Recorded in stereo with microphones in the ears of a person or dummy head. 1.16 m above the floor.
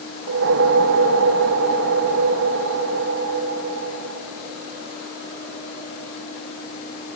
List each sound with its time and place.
0.3 s a whoosh: 70° right (ahead or behind), 0.9 m